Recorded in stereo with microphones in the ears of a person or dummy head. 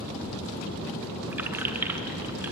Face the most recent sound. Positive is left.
turn(degrees=-10)  # may be behind; listen again after turning